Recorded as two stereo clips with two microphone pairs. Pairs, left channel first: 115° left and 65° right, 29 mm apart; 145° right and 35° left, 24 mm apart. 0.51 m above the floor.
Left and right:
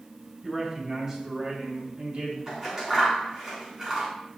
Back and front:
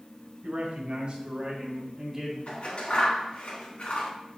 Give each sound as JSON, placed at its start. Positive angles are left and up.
{"t": 0.4, "sound": "a man speaking", "azimuth_deg": 20, "distance_m": 3.0}
{"t": 2.5, "sound": "scissors", "azimuth_deg": -125, "distance_m": 3.5}